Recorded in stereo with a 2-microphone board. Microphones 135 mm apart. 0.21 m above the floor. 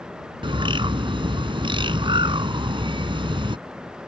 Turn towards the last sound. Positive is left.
turn(degrees=-40)  # may be behind; listen again after turning